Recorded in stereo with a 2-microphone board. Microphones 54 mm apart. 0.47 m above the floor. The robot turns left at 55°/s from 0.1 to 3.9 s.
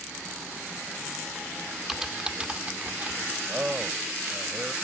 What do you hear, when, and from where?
1.9 s typing on a keyboard: 5° right (ahead or behind); by 3.3 s 30° right (ahead or behind)
3.5 s a man speaking: 30° right (ahead or behind); by 4.7 s 10° right (ahead or behind)